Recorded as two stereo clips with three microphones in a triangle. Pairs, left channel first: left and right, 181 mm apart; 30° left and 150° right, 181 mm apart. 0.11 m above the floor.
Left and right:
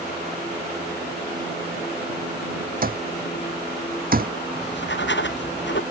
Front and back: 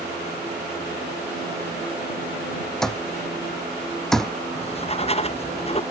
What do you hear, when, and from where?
2.8 s an alarm clock: 55° right
4.5 s writing: 85° left